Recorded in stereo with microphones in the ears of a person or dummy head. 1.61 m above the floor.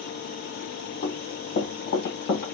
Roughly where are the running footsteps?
Left.